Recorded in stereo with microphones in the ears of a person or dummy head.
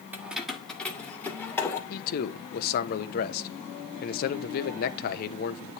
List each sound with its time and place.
0.1 s keys jangling: 15° right (ahead or behind), 1.3 m; by 1.8 s 10° left (ahead or behind), 3 m
1.9 s a man speaking: 50° left (ahead or behind), 1.0 m